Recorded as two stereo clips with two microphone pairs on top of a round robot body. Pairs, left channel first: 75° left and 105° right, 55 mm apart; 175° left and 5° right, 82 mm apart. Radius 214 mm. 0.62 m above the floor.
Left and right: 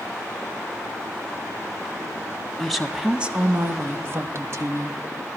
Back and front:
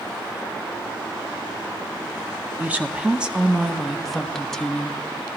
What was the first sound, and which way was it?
A woman speaking, straight ahead.